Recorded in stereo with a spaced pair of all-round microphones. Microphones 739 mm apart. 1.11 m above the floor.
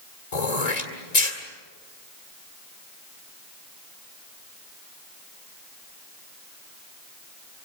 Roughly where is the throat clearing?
Left.